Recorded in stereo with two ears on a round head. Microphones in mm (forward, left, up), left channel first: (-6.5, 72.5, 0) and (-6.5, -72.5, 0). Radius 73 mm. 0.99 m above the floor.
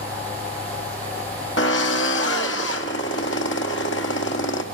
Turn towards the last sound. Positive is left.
turn(degrees=80)